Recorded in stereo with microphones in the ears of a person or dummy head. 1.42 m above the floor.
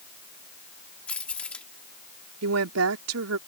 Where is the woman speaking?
80° right.